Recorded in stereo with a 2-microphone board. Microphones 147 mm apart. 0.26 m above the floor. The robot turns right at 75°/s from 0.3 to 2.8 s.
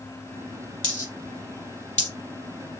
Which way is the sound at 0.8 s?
35° right (ahead or behind).